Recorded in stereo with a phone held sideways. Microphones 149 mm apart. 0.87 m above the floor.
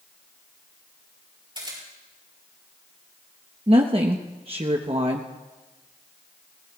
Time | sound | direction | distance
1.6 | a camera shutter | 30° right (ahead or behind) | 6 m
3.7 | a woman speaking | 40° right (ahead or behind) | 0.9 m